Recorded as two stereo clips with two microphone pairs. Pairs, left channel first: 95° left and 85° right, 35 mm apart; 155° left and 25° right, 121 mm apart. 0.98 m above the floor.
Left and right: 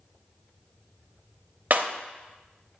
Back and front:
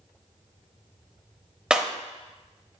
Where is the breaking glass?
110° right, 0.7 m.